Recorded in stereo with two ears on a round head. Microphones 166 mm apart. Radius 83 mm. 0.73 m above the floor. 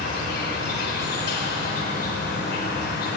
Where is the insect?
60° left (ahead or behind), 4 m.